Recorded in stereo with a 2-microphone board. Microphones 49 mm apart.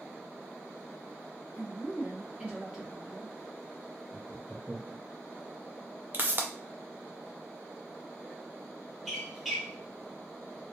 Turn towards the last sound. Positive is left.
turn(degrees=0)  # may be behind; listen again after turning